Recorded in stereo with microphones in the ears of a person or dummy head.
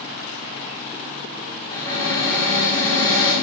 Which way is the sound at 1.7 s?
20° left (ahead or behind).